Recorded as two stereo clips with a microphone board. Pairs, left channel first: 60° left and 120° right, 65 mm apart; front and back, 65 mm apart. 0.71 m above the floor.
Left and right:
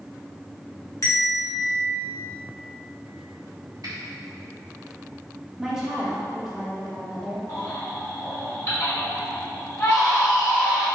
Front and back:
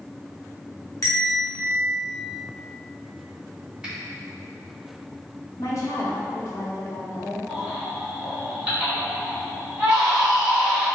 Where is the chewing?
No chewing in this recording.